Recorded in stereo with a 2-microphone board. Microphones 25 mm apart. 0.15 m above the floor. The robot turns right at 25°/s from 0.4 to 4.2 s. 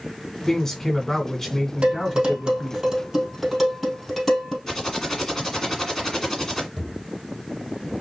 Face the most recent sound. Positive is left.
turn(degrees=20)  # may be behind; listen again after turning